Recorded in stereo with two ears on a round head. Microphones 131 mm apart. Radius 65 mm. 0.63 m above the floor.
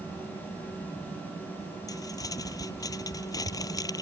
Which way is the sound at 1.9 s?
25° left (ahead or behind).